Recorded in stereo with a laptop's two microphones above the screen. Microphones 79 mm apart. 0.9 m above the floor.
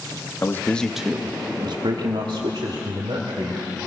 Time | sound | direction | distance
0.4 | a man speaking | 30° left (ahead or behind) | 1.2 m